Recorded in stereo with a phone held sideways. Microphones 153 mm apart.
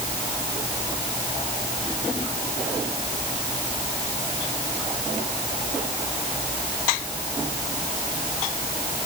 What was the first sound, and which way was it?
Only background noise.